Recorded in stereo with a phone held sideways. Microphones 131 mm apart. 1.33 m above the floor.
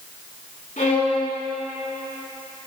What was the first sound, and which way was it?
A violin, 80° left.